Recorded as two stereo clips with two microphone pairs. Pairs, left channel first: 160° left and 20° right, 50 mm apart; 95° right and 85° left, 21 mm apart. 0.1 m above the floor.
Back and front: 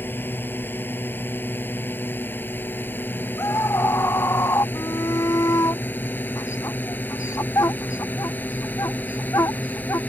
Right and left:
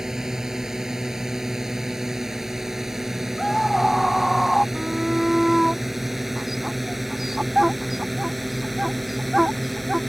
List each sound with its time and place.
0.0 s a drone: 140° left; by 10.1 s straight behind
3.4 s a scream: 175° right
4.8 s a shout: 165° left